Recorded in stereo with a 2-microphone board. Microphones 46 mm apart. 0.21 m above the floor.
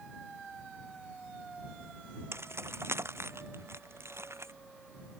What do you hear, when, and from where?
2.3 s keys jangling: 75° right (ahead or behind); by 4.5 s 85° right